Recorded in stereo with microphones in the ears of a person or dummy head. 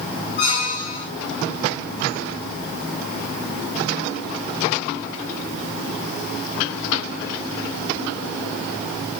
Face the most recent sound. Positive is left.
turn(degrees=25)  # may be behind; listen again after turning